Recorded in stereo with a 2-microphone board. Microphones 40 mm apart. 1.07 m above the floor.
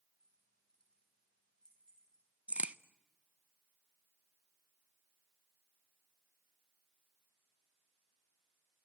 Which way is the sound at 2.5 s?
35° right (ahead or behind).